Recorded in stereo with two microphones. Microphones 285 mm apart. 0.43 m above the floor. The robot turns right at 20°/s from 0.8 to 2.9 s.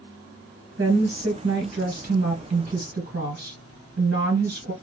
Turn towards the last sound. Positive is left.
turn(degrees=-75)